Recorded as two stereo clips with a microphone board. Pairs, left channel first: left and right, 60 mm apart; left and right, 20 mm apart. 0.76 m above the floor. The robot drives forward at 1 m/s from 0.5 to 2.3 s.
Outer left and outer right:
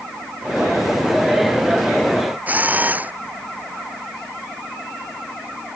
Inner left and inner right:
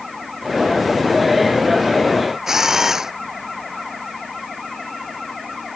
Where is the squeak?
No squeak in this recording.